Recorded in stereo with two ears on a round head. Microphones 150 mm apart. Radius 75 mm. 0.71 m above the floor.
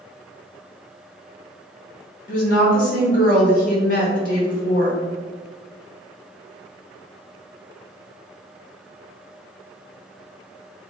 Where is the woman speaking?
55° left (ahead or behind), 0.9 m.